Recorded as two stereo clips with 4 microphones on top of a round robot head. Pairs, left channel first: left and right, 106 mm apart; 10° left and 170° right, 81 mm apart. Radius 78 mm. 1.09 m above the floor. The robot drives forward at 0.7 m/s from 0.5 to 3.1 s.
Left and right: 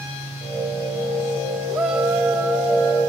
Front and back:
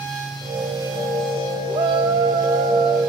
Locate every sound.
1.7 s a shout: 175° right, 2.5 m